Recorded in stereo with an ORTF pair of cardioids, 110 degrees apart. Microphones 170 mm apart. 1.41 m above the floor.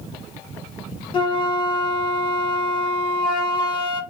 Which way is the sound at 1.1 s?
30° left.